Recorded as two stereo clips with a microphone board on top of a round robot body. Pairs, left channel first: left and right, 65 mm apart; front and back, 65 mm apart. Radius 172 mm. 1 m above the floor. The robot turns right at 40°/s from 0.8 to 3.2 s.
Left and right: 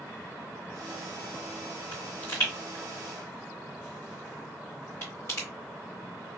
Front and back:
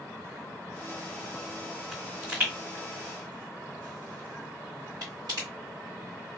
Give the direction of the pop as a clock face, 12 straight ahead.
9 o'clock.